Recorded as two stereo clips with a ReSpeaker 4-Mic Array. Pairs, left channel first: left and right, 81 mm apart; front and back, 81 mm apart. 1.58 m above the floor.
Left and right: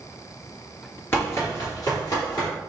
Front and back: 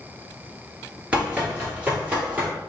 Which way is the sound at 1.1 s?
120° left.